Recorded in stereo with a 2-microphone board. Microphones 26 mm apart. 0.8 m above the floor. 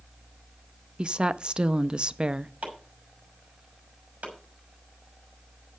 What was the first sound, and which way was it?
A woman speaking, 45° right (ahead or behind).